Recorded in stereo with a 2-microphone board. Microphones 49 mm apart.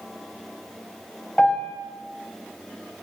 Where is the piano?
15° left (ahead or behind), 3.5 m.